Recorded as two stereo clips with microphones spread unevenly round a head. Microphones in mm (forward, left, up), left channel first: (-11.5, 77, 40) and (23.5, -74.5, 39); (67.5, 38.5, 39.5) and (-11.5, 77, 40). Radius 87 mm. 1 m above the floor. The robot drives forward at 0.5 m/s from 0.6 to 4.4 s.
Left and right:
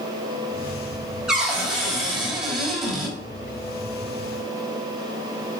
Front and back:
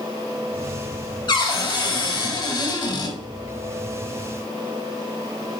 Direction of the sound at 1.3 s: 10° left.